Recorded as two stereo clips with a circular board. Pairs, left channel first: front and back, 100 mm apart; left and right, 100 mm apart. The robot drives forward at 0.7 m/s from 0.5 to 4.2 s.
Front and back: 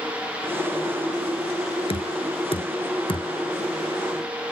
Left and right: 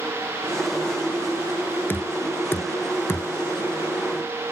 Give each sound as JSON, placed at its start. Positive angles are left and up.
{"t": 1.9, "sound": "knocking", "azimuth_deg": 20}